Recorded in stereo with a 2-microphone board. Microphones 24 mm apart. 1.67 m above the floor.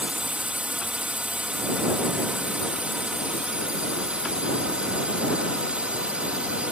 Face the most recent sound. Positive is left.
turn(degrees=-55)  # may be behind; listen again after turning